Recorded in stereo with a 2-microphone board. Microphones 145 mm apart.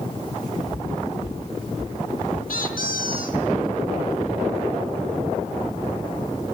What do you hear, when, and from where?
0.7 s footsteps: 65° left (ahead or behind), 3.5 m; by 2.4 s 75° left (ahead or behind), 5.5 m
2.5 s a squeak: 85° left, 3 m